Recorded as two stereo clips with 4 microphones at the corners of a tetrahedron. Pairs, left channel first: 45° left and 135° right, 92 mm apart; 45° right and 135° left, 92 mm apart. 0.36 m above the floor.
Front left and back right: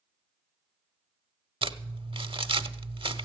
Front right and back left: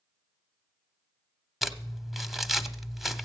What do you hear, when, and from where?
1.6 s crumpling: 135° right, 0.7 m